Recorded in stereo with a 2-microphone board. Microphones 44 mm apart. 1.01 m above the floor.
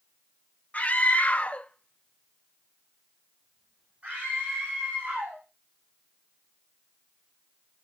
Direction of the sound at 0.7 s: 35° left (ahead or behind).